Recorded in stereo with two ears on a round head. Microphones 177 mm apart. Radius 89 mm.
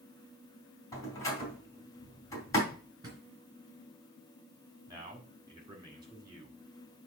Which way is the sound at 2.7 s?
20° right (ahead or behind).